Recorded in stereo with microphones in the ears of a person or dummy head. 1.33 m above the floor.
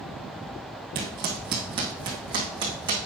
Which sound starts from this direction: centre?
Footsteps, at 0.9 s.